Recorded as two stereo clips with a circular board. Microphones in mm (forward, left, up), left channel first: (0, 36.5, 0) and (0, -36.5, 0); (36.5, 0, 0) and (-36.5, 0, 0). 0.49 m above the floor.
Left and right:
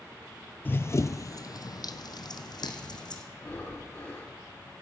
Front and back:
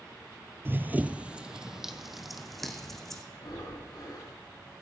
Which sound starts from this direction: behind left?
Running footsteps, at 0.7 s.